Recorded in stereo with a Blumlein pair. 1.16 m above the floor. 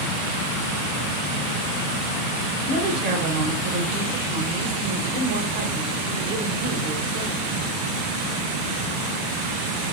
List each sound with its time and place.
2.6 s a woman speaking: 50° right, 1.0 m